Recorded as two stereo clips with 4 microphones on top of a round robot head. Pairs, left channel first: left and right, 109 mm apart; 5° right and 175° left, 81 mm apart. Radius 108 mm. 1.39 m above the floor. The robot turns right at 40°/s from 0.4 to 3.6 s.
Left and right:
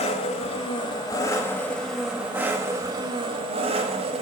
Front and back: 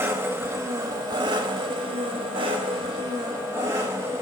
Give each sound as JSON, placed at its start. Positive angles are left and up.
{"t": 0.0, "sound": "an engine running", "azimuth_deg": 120, "distance_m": 1.3}